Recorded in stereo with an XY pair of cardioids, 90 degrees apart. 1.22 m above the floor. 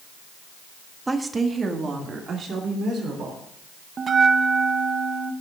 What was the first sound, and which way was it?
A woman speaking, 20° right.